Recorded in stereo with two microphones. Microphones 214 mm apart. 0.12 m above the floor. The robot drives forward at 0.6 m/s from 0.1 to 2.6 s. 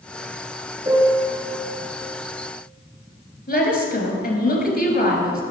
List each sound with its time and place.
0.8 s a piano: 20° right (ahead or behind), 1.3 m; by 1.4 s 15° right (ahead or behind), 1.5 m
3.5 s a woman speaking: 45° left (ahead or behind), 1.9 m